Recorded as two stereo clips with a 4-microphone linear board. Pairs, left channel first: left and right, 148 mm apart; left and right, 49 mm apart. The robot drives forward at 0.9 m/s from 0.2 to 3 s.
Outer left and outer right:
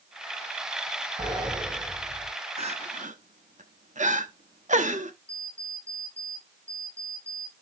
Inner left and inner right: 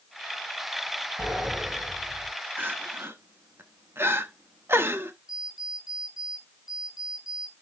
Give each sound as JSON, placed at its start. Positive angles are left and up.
{"t": 1.2, "sound": "a sliding door", "side_deg": -25, "distance_m": 5.5}
{"t": 2.6, "sound": "crying", "side_deg": -45, "distance_m": 1.3}
{"t": 5.3, "sound": "an alarm clock", "side_deg": -15, "distance_m": 7.5}